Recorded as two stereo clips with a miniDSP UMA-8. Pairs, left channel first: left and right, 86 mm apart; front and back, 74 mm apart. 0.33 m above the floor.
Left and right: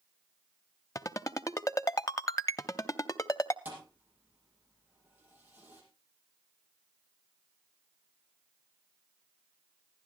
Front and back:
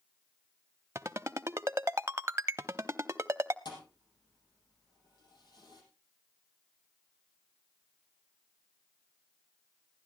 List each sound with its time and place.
0.9 s a ringtone: 135° left, 0.6 m
3.6 s a thud: 20° right, 5 m